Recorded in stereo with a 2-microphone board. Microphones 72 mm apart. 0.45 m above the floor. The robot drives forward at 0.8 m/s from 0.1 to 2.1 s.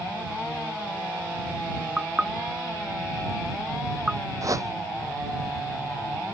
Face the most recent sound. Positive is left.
turn(degrees=-50)  # may be behind; listen again after turning